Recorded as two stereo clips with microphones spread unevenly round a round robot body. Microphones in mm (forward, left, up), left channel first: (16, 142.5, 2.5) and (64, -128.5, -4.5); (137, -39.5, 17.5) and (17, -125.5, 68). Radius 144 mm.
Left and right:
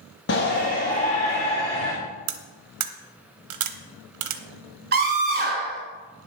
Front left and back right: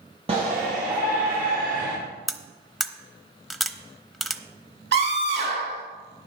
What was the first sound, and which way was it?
A shout, 150° left.